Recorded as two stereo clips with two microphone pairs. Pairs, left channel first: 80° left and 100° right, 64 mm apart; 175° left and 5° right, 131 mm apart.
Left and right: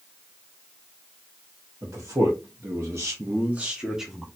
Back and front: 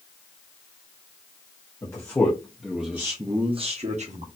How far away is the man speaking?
About 1.1 m.